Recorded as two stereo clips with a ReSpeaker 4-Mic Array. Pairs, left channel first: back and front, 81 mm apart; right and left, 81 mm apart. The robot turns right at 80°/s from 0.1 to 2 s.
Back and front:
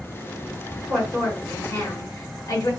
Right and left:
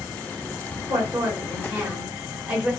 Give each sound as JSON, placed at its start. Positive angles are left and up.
{"t": 0.9, "sound": "a woman speaking", "azimuth_deg": 80, "distance_m": 1.4}